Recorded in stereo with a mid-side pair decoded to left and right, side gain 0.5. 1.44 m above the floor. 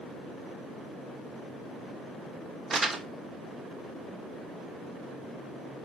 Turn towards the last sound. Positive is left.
turn(degrees=-30)